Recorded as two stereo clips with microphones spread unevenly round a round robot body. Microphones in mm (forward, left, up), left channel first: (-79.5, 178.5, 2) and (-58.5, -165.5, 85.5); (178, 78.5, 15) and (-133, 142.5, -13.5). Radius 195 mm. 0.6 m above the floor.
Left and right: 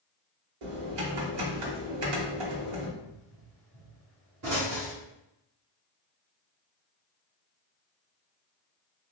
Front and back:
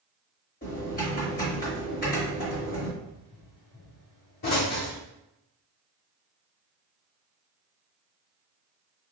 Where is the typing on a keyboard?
80° right, 1.1 m.